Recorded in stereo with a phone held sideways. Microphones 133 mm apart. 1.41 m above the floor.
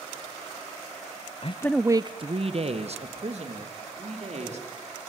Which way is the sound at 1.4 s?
50° left (ahead or behind).